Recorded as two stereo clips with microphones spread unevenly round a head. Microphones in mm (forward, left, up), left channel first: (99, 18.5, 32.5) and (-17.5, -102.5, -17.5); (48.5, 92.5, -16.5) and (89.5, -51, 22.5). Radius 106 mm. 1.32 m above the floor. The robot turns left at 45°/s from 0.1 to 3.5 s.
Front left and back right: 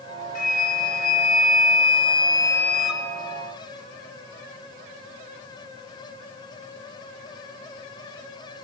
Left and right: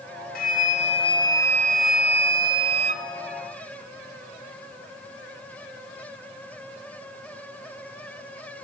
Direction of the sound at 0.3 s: 75° left.